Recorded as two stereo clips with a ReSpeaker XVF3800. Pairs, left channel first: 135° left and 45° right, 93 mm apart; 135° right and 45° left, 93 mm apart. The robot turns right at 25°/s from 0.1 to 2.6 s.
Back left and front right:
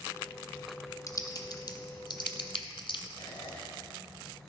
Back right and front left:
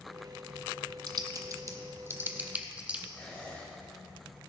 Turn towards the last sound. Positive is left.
turn(degrees=160)